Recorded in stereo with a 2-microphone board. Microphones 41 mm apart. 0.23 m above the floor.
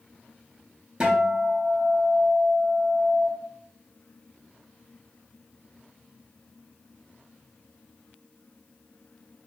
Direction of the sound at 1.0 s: 20° right (ahead or behind).